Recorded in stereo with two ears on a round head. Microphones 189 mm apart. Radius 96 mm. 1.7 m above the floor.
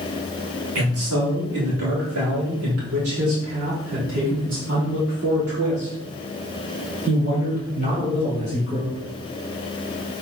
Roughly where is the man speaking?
Right.